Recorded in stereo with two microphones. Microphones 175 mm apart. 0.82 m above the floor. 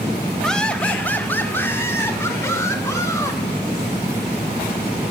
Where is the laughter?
5° left (ahead or behind), 1.1 m; by 3.4 s 15° left (ahead or behind), 3 m.